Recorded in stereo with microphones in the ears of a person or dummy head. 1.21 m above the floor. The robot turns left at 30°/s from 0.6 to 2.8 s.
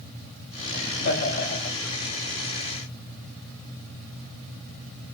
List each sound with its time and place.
0.7 s laughter: 85° left, 2.0 m; by 1.8 s 55° left, 2.0 m